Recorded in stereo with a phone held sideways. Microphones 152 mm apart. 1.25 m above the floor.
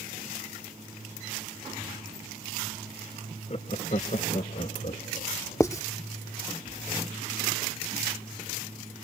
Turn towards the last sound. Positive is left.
turn(degrees=20)  # may be behind; listen again after turning